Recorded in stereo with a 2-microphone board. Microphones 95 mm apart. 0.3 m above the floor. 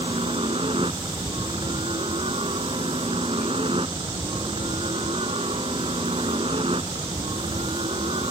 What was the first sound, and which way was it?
A helicopter, 65° right (ahead or behind).